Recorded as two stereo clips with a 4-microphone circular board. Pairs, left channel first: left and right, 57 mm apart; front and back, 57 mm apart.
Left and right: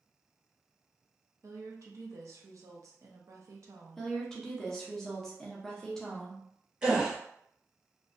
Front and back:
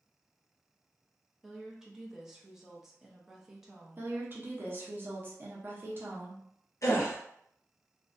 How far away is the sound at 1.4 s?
About 0.6 m.